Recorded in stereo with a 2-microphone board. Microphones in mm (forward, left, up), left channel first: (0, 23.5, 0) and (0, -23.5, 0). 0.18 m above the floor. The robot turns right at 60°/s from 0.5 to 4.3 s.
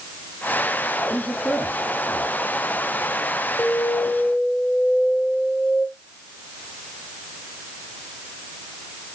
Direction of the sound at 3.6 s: 100° left.